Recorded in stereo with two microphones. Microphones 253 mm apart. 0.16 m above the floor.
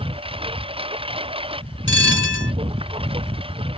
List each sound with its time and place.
0.0 s a lawn mower: 20° right (ahead or behind)
1.9 s a bell: 50° left (ahead or behind)